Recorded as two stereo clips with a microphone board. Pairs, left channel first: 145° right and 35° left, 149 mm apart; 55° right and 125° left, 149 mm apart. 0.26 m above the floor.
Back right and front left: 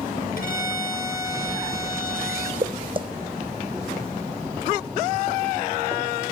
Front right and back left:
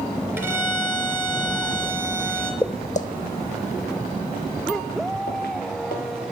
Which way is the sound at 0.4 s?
160° right.